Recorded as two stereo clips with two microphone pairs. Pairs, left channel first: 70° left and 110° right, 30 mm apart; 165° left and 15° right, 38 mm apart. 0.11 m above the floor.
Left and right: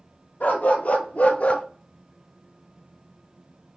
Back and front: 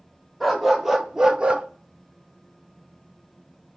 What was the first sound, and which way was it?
A dog barking, 70° left.